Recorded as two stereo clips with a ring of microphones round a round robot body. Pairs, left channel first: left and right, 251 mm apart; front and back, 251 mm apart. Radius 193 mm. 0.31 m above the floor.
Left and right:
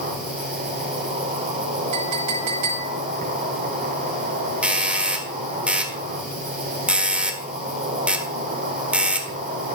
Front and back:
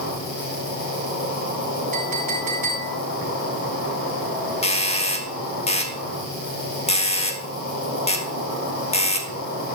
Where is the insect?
35° right, 4.5 m.